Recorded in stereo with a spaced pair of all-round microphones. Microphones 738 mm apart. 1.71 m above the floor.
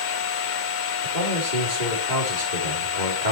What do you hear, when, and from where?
0.0 s a machine running: 85° left, 0.9 m
1.0 s a man speaking: 85° right, 4 m